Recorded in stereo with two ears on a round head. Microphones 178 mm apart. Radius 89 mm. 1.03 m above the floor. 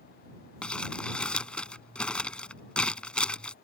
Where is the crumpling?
5° left (ahead or behind).